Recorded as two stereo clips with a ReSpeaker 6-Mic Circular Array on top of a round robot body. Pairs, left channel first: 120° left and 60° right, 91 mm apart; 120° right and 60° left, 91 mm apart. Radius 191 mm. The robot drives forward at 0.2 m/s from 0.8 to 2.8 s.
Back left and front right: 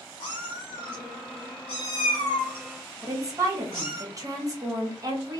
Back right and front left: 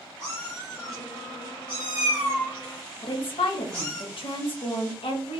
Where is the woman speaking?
110° right, 0.9 m.